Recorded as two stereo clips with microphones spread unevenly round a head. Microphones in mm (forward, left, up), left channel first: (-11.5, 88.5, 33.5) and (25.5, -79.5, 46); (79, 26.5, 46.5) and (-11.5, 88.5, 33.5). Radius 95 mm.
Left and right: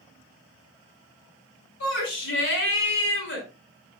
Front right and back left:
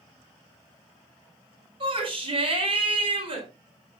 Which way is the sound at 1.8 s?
110° left.